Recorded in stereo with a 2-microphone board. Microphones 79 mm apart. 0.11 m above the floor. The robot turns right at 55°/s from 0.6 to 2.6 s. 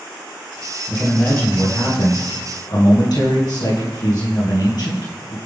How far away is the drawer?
No drawer in this recording.